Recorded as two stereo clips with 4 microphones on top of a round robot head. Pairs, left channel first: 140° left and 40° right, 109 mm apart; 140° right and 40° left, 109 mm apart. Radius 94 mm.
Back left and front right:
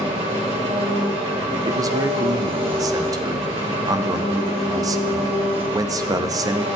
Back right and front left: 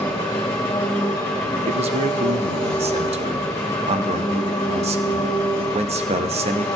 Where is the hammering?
I don't hear hammering.